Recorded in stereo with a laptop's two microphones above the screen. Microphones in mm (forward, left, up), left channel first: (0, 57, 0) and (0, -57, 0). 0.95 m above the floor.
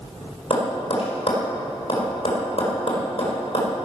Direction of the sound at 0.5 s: 60° left (ahead or behind).